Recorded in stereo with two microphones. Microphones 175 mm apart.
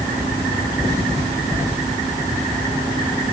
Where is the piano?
I don't hear a piano.